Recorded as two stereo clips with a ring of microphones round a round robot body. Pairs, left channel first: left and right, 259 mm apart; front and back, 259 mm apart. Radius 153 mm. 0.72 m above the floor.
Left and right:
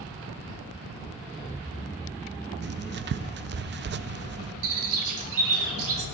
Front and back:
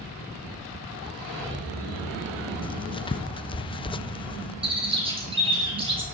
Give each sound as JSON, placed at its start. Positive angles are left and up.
{"t": 2.6, "sound": "writing", "azimuth_deg": -65, "distance_m": 0.5}
{"t": 4.6, "sound": "a bird", "azimuth_deg": -110, "distance_m": 5.5}